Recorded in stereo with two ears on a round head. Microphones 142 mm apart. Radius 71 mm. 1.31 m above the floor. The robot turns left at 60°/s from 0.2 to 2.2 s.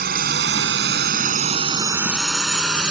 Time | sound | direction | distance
0.0 | a drone | 65° right (ahead or behind) | ?